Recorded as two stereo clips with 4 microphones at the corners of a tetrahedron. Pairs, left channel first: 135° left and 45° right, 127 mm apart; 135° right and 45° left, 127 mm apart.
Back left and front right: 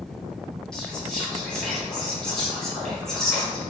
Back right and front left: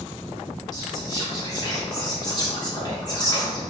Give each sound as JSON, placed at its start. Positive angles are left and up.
{"t": 0.7, "sound": "whispering", "azimuth_deg": -145, "distance_m": 1.1}